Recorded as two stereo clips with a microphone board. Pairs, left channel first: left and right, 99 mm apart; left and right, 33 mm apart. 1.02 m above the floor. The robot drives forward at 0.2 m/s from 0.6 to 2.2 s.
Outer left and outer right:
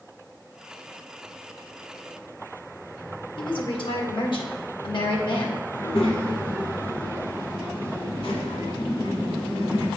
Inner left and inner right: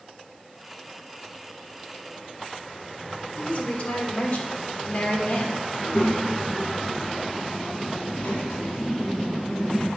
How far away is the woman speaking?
About 1.4 m.